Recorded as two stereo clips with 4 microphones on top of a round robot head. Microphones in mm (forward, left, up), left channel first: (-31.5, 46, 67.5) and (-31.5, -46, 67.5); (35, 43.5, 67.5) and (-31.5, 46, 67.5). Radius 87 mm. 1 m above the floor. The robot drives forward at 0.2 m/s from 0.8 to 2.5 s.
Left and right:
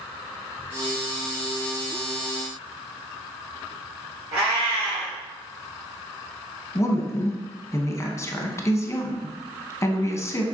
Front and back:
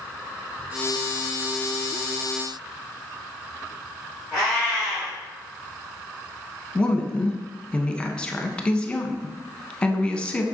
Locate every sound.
4.3 s a cat meowing: 85° right, 2 m
6.8 s a woman speaking: 65° left, 0.8 m